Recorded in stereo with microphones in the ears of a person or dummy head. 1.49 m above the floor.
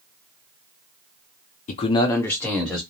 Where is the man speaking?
40° left (ahead or behind), 0.5 m; by 2.8 s centre (ahead or behind), 1.2 m.